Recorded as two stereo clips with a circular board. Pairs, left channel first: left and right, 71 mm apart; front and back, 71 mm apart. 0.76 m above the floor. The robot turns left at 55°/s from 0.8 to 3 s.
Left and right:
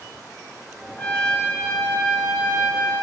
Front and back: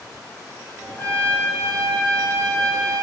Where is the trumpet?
35° left, 1.1 m; by 3.0 s 75° right, 1.1 m.